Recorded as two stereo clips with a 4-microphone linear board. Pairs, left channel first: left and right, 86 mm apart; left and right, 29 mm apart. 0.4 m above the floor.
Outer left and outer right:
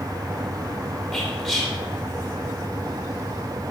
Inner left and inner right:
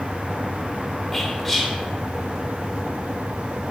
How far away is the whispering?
About 1.0 m.